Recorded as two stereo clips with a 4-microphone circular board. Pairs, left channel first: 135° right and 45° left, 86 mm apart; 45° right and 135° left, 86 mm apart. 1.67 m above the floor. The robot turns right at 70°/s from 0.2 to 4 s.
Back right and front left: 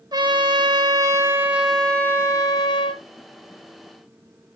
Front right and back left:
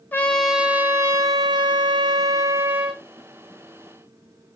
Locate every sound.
0.1 s a trumpet: 20° left, 0.7 m; by 3.0 s 140° right, 0.7 m